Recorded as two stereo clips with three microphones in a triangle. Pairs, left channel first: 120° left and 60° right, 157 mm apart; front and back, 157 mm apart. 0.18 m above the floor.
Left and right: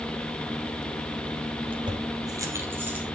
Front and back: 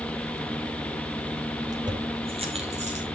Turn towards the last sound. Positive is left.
turn(degrees=-140)